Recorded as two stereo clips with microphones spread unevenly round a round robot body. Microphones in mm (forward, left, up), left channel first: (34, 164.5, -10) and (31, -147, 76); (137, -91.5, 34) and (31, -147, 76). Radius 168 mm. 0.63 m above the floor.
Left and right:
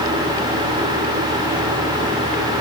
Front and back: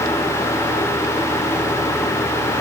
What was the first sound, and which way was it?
Only background noise.